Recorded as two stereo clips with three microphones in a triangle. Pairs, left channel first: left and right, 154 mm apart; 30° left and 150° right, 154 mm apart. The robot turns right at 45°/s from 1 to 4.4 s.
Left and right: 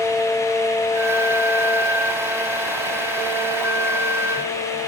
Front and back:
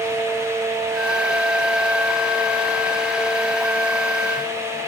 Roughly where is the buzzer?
No buzzer in this recording.